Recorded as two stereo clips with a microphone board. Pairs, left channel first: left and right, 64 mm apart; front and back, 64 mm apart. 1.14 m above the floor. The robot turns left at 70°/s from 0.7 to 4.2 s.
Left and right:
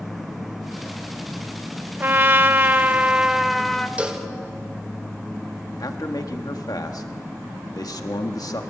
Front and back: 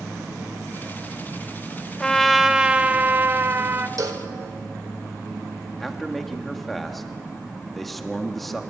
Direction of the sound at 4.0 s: 155° right.